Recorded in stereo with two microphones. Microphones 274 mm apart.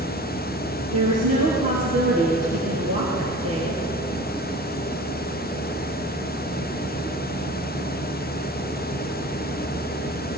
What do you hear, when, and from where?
0.9 s a woman speaking: 65° right (ahead or behind), 3 m; by 3.8 s 55° right (ahead or behind), 3 m